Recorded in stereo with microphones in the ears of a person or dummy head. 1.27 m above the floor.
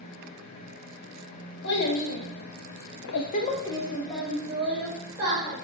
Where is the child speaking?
60° left (ahead or behind), 1.1 m; by 5.5 s 20° right (ahead or behind), 1.5 m.